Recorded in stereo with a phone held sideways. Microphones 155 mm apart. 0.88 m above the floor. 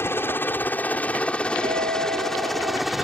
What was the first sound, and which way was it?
A helicopter, 15° left (ahead or behind).